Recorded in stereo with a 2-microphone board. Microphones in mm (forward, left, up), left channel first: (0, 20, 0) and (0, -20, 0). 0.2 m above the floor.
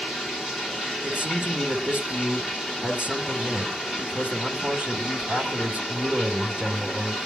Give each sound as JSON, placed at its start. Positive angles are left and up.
{"t": 0.0, "sound": "running water", "side_deg": -10, "distance_m": 3.5}
{"t": 1.0, "sound": "a man speaking", "side_deg": -30, "distance_m": 1.7}